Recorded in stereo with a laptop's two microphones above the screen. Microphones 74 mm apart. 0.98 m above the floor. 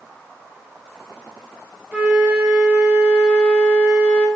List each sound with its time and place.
1.9 s a flute: 15° right (ahead or behind), 0.9 m